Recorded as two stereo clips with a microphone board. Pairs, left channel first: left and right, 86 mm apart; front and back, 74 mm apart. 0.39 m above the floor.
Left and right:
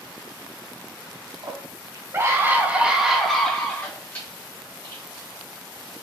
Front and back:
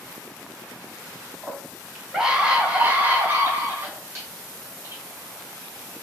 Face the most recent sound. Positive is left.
turn(degrees=135)